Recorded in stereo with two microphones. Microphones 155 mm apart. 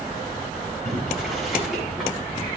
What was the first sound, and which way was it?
Boiling, centre (ahead or behind).